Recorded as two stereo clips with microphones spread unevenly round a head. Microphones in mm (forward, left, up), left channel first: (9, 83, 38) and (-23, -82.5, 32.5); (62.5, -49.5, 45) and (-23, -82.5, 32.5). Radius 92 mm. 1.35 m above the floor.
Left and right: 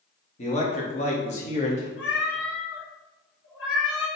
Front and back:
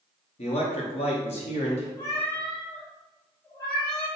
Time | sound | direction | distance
0.4 | a man speaking | 25° left | 1.2 m
2.0 | a cat meowing | 95° left | 1.6 m